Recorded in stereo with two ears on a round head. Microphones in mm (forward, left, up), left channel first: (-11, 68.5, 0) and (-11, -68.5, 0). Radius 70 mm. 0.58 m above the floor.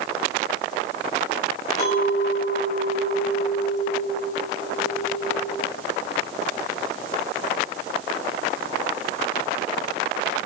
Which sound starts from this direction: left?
A clink, at 1.8 s.